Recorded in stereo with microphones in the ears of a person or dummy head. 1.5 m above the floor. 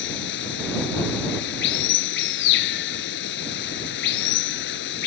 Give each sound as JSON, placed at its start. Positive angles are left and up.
{"t": 0.0, "sound": "running water", "side_deg": 60}